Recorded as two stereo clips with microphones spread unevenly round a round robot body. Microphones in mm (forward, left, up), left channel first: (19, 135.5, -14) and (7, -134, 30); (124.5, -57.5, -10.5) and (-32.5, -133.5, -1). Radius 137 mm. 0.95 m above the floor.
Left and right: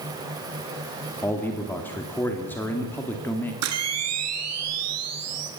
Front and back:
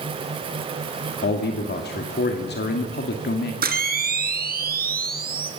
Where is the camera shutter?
125° right, 3.5 m.